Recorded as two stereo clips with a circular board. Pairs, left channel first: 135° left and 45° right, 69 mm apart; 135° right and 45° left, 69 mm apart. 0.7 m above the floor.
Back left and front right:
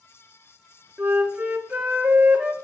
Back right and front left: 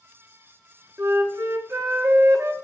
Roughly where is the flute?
Ahead.